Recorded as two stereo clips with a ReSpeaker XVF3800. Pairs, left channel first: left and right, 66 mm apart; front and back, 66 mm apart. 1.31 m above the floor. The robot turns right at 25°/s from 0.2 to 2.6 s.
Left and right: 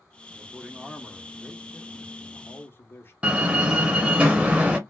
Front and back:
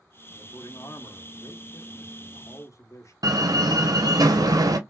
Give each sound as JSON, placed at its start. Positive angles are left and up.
{"t": 0.3, "sound": "a man speaking", "azimuth_deg": -20, "distance_m": 1.0}
{"t": 3.2, "sound": "a door slam", "azimuth_deg": -160, "distance_m": 0.9}